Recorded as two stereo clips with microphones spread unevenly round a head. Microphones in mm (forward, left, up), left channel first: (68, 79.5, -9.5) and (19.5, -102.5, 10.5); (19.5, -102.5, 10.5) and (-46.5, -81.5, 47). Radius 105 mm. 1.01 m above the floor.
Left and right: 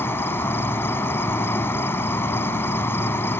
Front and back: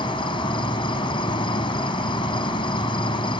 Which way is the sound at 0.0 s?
5° right.